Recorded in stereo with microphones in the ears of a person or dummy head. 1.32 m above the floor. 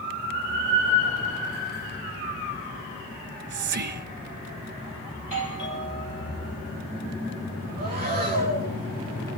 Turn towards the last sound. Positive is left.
turn(degrees=-45)  # may be behind; listen again after turning